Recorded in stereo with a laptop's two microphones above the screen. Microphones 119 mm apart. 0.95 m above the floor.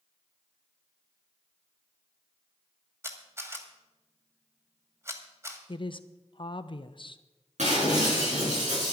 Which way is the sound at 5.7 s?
45° left (ahead or behind).